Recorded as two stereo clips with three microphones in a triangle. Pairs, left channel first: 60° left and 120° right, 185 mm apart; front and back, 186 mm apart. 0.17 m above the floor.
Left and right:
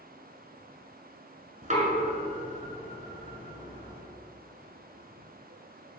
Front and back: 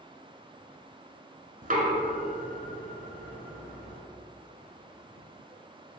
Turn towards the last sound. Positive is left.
turn(degrees=-155)